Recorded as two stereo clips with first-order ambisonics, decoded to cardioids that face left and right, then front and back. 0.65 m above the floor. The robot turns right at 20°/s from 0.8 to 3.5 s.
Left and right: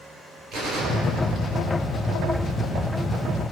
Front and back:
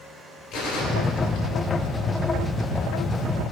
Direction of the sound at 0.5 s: 45° right.